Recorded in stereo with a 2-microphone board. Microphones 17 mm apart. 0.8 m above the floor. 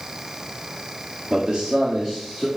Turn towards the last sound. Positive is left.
turn(degrees=0)  # may be behind; listen again after turning